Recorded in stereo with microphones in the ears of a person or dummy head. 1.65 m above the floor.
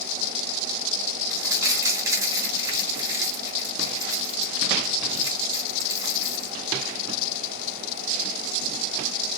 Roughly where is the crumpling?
Centre.